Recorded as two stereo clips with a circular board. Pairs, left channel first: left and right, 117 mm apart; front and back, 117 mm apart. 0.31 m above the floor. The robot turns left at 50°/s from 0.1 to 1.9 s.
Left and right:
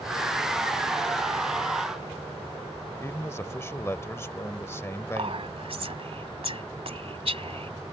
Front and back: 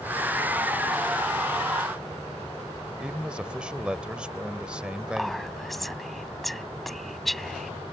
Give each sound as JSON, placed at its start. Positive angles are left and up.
{"t": 3.0, "sound": "a man speaking", "azimuth_deg": 110}
{"t": 5.2, "sound": "whispering", "azimuth_deg": -90}